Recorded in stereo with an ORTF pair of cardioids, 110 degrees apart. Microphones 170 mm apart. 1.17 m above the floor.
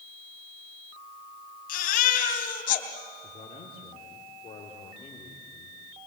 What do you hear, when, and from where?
1.7 s a baby crying: 60° left, 3 m
3.2 s a man speaking: 35° left, 3.5 m